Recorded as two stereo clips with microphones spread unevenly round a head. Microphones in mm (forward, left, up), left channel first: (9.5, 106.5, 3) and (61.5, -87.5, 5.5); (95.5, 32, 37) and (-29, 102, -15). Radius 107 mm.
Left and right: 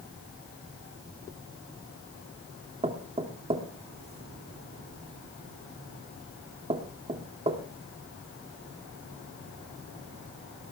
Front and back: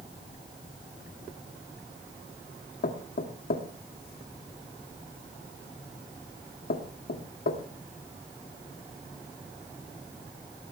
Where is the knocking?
15° right, 2.5 m.